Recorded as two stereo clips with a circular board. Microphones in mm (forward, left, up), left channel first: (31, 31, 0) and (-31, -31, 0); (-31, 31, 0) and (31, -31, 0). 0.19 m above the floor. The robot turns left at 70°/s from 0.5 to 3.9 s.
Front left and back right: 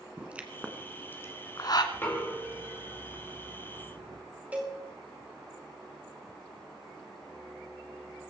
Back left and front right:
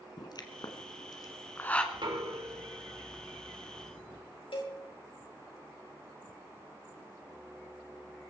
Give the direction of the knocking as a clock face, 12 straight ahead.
1 o'clock.